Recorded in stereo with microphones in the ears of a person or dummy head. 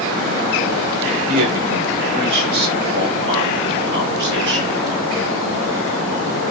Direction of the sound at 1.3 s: 50° right (ahead or behind).